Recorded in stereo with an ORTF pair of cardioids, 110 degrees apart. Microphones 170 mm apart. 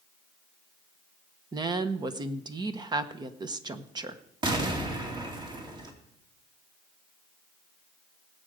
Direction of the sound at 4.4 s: 25° right.